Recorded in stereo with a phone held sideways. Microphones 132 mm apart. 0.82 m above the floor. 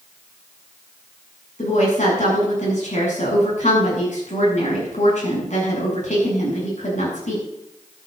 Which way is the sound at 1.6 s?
65° left (ahead or behind).